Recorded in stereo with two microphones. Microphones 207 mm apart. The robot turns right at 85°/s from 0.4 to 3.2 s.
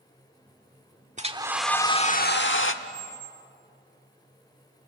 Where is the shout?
No shout in this recording.